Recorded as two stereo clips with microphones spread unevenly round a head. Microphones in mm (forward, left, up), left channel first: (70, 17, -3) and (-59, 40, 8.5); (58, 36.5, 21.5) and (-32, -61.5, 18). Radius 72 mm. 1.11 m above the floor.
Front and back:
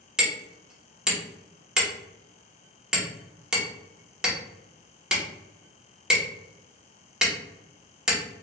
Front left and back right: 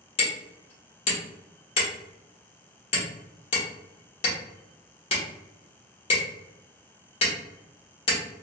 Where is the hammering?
90° left, 1.0 m.